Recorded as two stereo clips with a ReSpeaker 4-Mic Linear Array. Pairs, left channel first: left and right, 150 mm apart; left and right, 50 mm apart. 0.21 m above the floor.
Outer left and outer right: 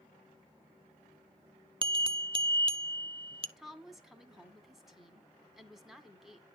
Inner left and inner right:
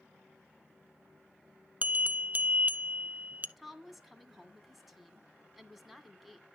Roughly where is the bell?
Right.